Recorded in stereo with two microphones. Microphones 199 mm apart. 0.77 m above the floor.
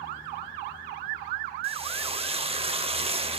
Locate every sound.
1.6 s frying: 30° right (ahead or behind), 0.6 m